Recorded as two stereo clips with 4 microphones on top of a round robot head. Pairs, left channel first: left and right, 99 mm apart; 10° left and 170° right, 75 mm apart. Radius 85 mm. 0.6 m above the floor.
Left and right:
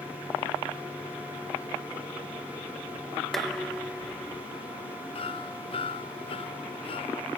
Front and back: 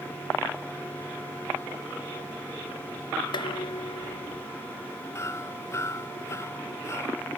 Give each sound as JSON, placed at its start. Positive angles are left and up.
{"t": 3.3, "sound": "dishes clattering", "azimuth_deg": 5}
{"t": 5.2, "sound": "hammering", "azimuth_deg": 60}